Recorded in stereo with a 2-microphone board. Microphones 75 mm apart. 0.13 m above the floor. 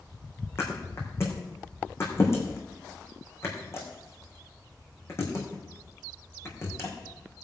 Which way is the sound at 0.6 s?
35° left (ahead or behind).